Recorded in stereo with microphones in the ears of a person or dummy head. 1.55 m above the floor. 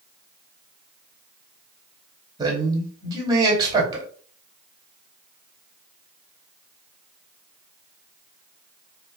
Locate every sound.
2.4 s a man speaking: 25° right (ahead or behind), 2.5 m